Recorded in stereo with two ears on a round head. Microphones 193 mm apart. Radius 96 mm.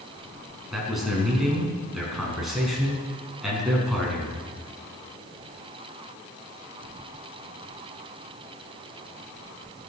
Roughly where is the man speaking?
Centre.